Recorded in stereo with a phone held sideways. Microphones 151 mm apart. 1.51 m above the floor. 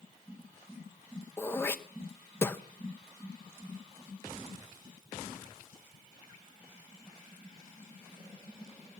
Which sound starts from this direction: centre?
Throat clearing, at 1.4 s.